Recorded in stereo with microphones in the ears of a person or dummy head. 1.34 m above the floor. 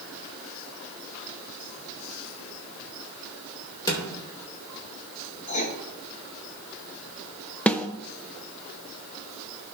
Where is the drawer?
25° left (ahead or behind), 2.5 m.